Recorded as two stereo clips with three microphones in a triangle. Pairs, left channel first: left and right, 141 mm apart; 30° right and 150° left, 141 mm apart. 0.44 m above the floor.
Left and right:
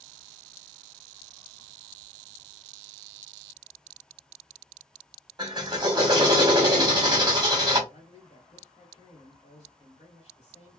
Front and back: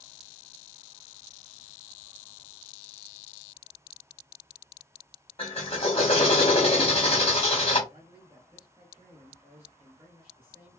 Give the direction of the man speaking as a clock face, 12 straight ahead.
9 o'clock.